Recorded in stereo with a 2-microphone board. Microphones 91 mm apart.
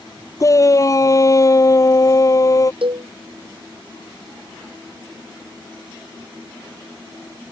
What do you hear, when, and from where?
0.4 s a shout: 35° left (ahead or behind)
2.8 s a cowbell: 70° right (ahead or behind)